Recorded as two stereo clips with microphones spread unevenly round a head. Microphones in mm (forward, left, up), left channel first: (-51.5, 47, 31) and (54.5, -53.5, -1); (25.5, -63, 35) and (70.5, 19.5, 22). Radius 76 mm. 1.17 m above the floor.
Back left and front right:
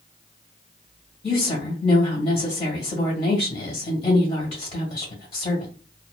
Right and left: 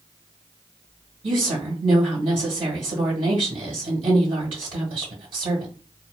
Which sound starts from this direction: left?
A woman speaking, at 1.2 s.